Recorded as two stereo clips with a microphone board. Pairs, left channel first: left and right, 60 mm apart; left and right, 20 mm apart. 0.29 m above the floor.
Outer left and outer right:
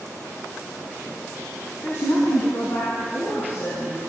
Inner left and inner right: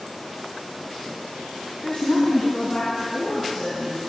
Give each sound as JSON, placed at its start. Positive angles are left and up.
{"t": 1.8, "sound": "a woman speaking", "side_deg": 55, "distance_m": 2.0}